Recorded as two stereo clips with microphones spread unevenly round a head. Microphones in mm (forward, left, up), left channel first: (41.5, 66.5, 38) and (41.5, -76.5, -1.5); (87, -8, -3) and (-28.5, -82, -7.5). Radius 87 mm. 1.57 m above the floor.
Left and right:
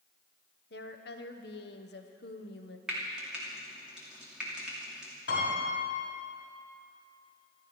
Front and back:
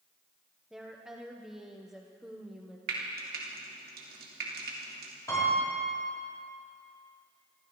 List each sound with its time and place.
0.7 s a woman speaking: 125° left, 1.1 m
2.9 s frying: straight behind, 2.5 m
5.3 s a piano: 105° left, 5.5 m